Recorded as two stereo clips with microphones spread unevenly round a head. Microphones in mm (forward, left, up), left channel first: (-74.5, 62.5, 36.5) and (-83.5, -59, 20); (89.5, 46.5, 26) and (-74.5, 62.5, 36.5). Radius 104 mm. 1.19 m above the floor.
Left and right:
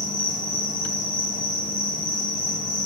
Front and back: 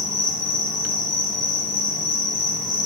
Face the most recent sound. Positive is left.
turn(degrees=35)